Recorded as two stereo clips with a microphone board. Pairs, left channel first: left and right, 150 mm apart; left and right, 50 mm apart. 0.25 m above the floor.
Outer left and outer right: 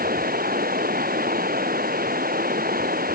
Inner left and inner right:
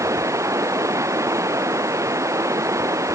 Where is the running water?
85° right.